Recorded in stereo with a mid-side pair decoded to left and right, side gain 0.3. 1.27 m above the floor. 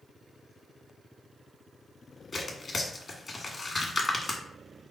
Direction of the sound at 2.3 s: 45° left.